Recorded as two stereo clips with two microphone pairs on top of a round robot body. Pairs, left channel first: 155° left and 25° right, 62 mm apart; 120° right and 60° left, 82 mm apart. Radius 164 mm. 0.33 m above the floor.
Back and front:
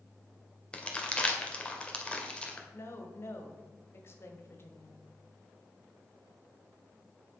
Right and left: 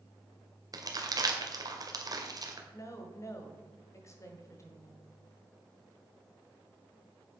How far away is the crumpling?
About 1.9 m.